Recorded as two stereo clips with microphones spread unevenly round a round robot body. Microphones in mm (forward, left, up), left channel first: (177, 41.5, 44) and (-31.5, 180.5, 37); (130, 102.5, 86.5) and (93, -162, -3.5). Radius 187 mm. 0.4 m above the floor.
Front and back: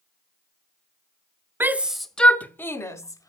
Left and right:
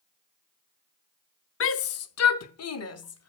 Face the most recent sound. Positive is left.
turn(degrees=45)